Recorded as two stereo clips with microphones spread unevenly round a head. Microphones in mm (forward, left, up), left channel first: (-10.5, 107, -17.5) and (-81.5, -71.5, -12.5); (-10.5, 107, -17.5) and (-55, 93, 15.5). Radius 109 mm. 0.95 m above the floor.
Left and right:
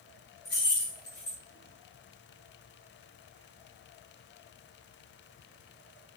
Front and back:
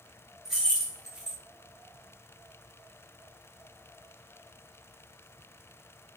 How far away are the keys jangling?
About 1.3 m.